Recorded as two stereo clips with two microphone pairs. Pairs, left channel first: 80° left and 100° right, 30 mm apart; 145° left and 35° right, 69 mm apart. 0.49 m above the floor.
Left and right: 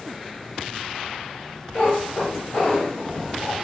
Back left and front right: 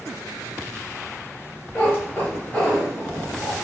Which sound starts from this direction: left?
A cat meowing, at 1.8 s.